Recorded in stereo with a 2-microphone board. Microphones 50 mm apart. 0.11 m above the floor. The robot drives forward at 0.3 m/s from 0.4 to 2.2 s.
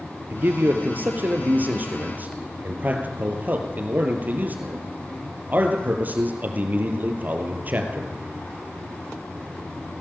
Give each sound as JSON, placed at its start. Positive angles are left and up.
{"t": 0.3, "sound": "a man speaking", "side_deg": -40, "distance_m": 3.0}